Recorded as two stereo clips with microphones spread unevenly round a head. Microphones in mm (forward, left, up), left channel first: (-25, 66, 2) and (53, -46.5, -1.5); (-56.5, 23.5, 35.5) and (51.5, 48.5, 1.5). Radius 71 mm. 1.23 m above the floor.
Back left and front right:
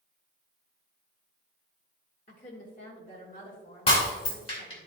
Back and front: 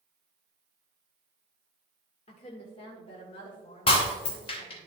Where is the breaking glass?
170° left, 3 m.